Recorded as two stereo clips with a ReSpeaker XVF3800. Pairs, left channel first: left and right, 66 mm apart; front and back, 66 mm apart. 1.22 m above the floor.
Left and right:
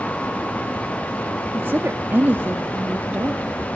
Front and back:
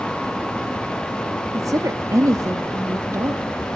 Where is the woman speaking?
150° right, 1.8 m.